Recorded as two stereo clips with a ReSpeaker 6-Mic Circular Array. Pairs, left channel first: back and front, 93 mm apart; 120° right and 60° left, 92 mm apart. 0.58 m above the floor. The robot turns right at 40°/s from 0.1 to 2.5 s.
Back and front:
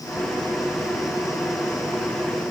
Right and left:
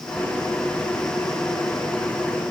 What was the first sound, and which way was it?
Only background noise.